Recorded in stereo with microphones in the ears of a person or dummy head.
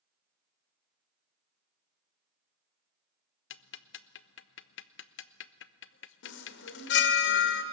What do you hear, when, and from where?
3.5 s ticking: 65° left (ahead or behind), 0.6 m
6.2 s a chime: 70° left (ahead or behind), 1.9 m